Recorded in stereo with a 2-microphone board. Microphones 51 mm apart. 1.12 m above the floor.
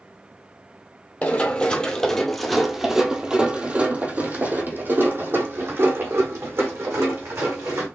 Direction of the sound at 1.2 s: 30° left (ahead or behind).